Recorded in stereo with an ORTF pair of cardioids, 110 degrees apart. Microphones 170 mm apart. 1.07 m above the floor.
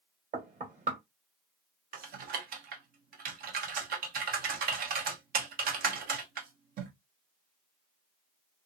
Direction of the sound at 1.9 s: 55° right.